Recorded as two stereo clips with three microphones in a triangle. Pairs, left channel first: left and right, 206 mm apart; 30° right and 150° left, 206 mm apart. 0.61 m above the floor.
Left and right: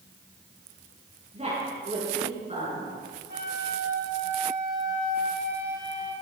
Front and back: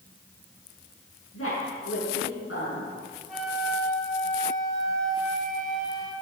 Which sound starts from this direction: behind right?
A flute, at 3.3 s.